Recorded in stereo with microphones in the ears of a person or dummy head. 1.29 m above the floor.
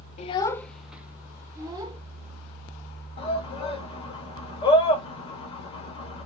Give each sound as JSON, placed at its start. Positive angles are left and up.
{"t": 0.2, "sound": "a child speaking", "side_deg": 35, "distance_m": 0.6}
{"t": 3.2, "sound": "a shout", "side_deg": 35, "distance_m": 1.9}